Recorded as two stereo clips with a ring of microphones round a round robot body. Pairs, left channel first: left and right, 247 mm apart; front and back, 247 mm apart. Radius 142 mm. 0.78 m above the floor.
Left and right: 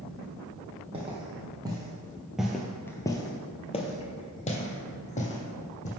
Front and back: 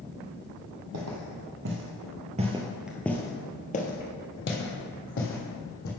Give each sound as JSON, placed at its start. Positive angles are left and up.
{"t": 0.9, "sound": "footsteps", "azimuth_deg": -160, "distance_m": 1.3}